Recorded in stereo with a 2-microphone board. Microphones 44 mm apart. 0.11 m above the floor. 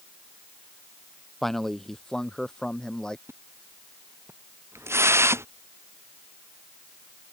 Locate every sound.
1.4 s a man speaking: 5° left (ahead or behind); by 3.2 s 15° left (ahead or behind)
3.3 s a splash: 85° right